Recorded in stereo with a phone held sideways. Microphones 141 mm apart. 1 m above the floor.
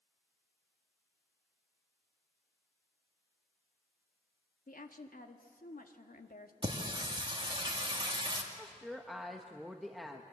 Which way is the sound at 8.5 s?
Centre (ahead or behind).